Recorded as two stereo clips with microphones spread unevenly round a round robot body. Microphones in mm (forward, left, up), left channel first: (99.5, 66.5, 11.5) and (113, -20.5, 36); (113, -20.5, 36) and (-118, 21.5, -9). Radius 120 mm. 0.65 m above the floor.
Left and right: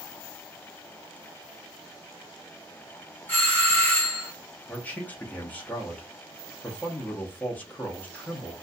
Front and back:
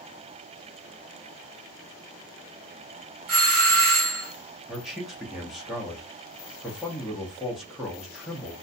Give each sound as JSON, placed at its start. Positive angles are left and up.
{"t": 3.3, "sound": "a doorbell", "azimuth_deg": 155, "distance_m": 2.0}
{"t": 4.7, "sound": "a man speaking", "azimuth_deg": 100, "distance_m": 0.7}